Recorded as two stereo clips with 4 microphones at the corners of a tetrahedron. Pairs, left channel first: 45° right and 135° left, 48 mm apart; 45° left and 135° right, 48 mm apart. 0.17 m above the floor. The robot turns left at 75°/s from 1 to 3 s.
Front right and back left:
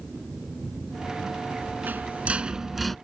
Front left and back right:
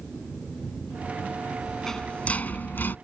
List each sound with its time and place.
1.6 s a rattle: 135° left; by 3.0 s 35° left